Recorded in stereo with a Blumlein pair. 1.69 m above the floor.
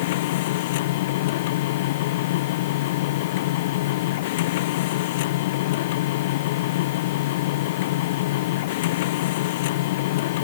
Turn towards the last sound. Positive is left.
turn(degrees=50)